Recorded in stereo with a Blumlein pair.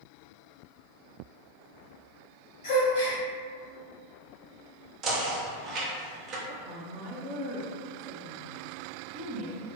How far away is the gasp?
About 1.1 m.